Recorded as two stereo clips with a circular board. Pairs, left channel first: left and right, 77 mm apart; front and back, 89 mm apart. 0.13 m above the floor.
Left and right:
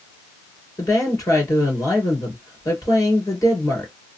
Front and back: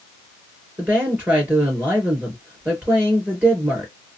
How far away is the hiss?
No hiss in this recording.